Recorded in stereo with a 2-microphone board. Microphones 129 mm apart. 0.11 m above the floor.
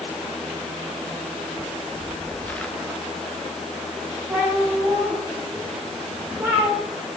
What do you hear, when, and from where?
1.6 s footsteps: 35° left (ahead or behind), 1.4 m; by 2.7 s 10° left (ahead or behind), 2 m
4.3 s a cat meowing: 15° right (ahead or behind), 5.5 m